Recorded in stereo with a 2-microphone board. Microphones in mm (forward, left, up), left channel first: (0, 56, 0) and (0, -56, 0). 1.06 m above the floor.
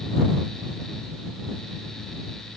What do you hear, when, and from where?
Only background noise.